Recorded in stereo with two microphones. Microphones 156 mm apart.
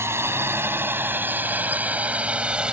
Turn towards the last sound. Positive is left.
turn(degrees=-5)  # may be behind; listen again after turning